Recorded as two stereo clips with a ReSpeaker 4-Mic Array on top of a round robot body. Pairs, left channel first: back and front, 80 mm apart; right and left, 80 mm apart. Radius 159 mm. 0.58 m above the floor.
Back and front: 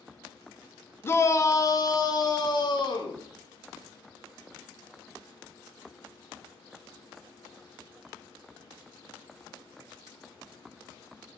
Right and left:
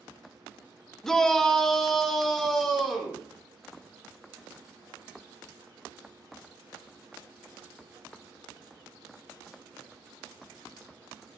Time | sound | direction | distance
1.0 | a shout | 170° right | 1.0 m